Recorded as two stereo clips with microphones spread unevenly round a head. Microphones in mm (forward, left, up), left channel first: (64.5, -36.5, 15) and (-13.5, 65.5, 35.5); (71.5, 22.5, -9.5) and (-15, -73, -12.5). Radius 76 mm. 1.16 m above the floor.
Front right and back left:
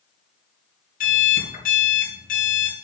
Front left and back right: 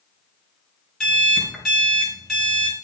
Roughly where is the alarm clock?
Ahead right.